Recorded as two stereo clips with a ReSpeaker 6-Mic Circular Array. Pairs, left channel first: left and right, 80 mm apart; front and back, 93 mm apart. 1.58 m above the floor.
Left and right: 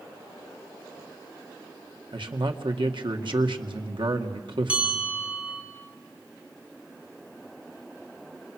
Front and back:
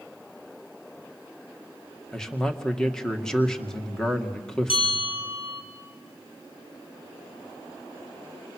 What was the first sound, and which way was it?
A man speaking, 85° right.